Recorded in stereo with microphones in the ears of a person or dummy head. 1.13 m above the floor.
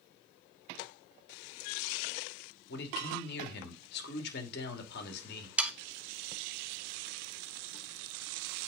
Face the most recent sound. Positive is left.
turn(degrees=-5)  # may be behind; listen again after turning